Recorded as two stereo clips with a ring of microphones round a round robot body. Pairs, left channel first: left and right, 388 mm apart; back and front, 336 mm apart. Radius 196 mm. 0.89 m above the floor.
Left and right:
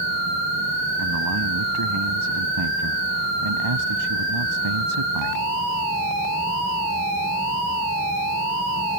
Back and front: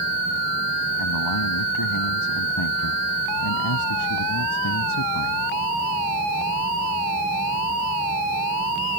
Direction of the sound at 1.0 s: 140° right.